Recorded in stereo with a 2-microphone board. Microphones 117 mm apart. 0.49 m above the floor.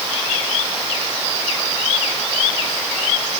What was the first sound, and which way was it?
Only background noise.